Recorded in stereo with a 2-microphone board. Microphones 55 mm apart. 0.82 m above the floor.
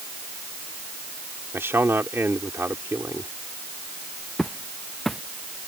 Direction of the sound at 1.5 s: 55° right (ahead or behind).